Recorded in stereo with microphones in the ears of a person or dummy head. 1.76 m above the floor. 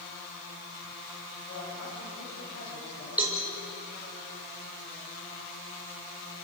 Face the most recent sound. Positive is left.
turn(degrees=-5)  # may be behind; listen again after turning